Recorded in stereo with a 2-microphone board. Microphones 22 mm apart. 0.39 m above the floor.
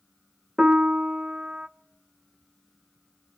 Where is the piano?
40° right (ahead or behind), 0.8 m.